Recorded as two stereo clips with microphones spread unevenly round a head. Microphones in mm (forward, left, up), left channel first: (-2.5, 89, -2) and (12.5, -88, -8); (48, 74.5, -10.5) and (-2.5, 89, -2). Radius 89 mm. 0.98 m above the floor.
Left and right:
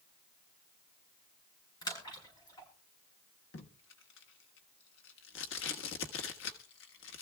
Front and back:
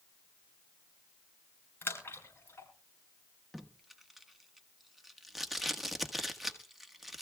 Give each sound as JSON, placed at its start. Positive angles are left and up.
{"t": 1.8, "sound": "a splash", "azimuth_deg": 25, "distance_m": 7.5}
{"t": 3.5, "sound": "tape being pulled", "azimuth_deg": 75, "distance_m": 1.5}